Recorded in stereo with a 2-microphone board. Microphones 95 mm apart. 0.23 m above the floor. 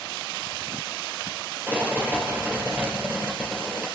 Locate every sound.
1.7 s a rattle: 20° right (ahead or behind), 2.5 m